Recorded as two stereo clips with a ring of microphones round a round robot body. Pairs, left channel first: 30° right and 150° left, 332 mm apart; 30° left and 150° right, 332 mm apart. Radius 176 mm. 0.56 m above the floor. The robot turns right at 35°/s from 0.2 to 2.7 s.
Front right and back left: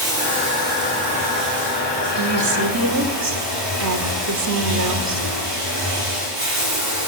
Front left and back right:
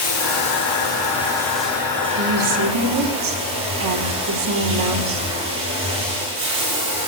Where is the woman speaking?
160° left, 2 m; by 5.3 s straight behind, 2 m.